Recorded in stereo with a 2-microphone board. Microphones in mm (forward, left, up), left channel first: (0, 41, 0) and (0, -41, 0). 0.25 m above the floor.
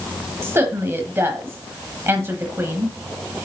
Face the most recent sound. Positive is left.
turn(degrees=-30)  # may be behind; listen again after turning